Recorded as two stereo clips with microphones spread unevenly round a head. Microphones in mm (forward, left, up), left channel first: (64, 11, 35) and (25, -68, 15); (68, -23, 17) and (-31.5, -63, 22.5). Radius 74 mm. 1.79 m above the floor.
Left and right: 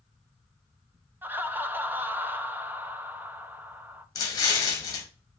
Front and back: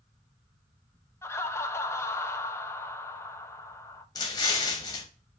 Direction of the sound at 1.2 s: 45° right.